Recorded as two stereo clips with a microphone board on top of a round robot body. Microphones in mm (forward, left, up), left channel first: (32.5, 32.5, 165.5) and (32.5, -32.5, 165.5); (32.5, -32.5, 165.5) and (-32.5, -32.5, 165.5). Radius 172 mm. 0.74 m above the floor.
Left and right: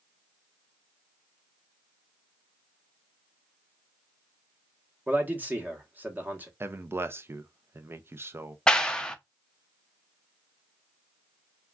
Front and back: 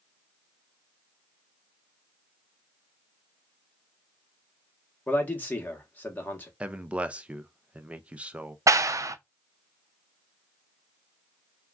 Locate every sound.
5.1 s a man speaking: 45° right, 1.2 m
6.6 s a man speaking: 115° right, 0.6 m
8.7 s a clap: 165° left, 0.5 m